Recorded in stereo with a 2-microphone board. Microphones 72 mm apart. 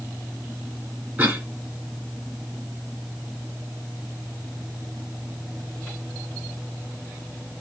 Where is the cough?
25° right (ahead or behind), 2 m.